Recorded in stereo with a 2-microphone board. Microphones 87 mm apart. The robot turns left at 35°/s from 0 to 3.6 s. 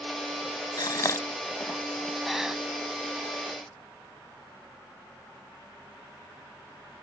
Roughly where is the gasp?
Left.